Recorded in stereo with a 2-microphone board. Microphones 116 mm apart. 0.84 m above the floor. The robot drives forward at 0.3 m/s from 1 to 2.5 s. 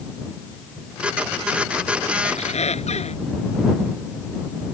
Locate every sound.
2.2 s a squeak: 75° left (ahead or behind)